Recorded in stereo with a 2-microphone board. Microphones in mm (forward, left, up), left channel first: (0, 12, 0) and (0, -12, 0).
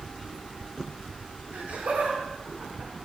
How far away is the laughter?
About 4 m.